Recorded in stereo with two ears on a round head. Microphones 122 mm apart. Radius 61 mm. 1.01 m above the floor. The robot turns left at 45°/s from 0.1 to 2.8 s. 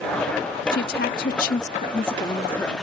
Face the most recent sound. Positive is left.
turn(degrees=5)